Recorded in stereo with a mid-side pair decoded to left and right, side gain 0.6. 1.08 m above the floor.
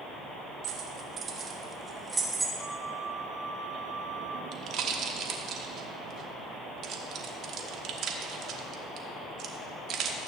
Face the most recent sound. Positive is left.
turn(degrees=-60)